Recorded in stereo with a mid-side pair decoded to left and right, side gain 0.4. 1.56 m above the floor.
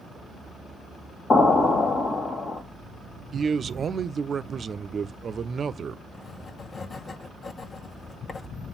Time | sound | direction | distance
1.3 | an explosion | 50° left | 1.9 m
3.3 | a man speaking | 50° right | 0.6 m
6.1 | writing | 45° left | 1.1 m